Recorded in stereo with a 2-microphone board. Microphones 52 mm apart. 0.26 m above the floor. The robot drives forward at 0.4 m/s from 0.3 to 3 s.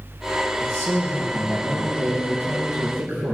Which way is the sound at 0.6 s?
55° right (ahead or behind).